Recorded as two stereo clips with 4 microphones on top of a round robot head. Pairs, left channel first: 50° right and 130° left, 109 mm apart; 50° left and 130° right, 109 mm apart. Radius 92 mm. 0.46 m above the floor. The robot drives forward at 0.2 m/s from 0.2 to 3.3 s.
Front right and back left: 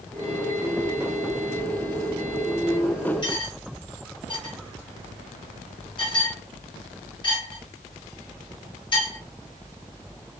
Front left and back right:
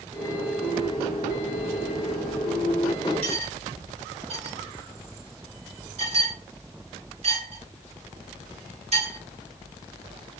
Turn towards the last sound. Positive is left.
turn(degrees=-100)